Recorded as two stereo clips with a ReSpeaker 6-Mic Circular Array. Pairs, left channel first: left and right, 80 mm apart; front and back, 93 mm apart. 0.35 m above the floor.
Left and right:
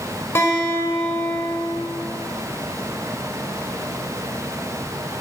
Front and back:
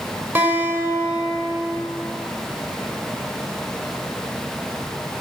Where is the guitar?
125° left, 0.9 m.